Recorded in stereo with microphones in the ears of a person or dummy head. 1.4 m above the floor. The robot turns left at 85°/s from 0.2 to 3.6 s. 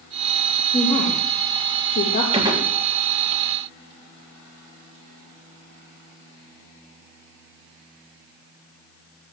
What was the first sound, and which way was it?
A woman speaking, 20° left (ahead or behind).